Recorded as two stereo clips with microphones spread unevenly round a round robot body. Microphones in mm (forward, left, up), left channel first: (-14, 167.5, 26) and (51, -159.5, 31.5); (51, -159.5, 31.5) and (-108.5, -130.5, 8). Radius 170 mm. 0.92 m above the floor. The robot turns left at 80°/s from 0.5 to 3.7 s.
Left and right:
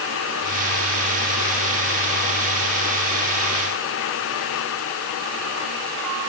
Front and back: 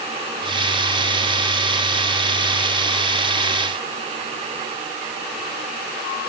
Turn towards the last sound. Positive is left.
No sound to turn to.